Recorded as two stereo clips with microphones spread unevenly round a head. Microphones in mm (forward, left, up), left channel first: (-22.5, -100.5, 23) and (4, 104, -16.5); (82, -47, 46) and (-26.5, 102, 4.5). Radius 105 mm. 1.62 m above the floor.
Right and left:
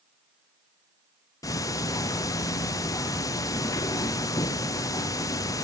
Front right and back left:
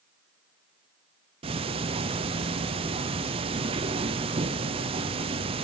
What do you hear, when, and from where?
1.4 s ticking: 175° right, 0.7 m